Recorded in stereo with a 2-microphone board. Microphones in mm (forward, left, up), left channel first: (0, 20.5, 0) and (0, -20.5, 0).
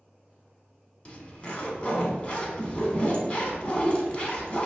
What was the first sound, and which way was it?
A zipper, 35° left (ahead or behind).